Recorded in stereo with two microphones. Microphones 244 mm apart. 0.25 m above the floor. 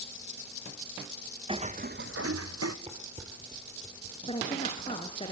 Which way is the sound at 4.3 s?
25° left (ahead or behind).